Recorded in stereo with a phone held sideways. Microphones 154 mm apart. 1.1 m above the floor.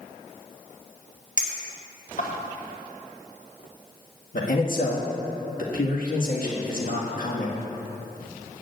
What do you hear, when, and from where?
1.4 s a clink: 50° left (ahead or behind), 1.6 m
4.3 s a man speaking: 70° left (ahead or behind), 1.7 m